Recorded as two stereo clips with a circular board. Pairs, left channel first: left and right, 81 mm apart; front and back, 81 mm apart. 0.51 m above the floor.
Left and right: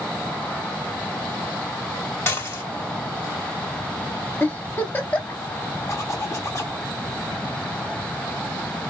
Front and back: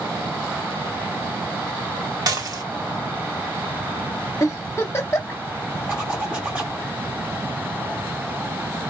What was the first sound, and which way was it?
Dishes clattering, 145° left.